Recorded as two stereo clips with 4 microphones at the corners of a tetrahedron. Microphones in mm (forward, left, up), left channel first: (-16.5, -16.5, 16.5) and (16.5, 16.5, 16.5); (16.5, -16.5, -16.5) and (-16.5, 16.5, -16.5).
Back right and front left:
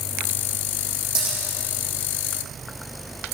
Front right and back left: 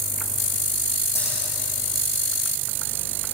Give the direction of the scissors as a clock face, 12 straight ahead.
1 o'clock.